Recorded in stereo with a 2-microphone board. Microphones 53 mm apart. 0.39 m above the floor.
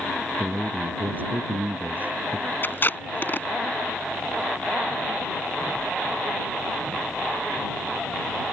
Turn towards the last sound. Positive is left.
turn(degrees=40)  # may be behind; listen again after turning